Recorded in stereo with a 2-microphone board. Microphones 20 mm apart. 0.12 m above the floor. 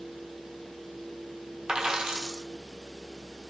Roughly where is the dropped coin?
Right.